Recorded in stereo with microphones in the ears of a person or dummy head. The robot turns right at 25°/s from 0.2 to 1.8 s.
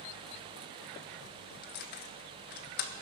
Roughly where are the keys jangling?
Left.